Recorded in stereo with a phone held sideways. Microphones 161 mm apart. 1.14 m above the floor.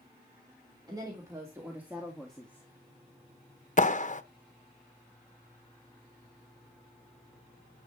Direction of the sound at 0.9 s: 25° right (ahead or behind).